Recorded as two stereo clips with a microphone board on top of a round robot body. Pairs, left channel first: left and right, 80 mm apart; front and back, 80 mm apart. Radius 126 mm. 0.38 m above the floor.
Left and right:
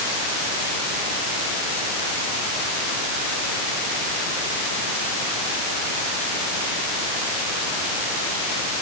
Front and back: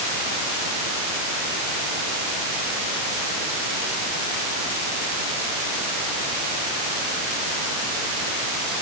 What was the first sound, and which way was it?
Only background noise.